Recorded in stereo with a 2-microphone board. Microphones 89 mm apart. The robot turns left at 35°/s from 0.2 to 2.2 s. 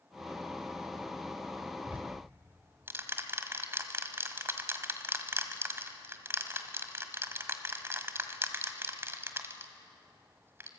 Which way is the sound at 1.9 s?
15° right (ahead or behind).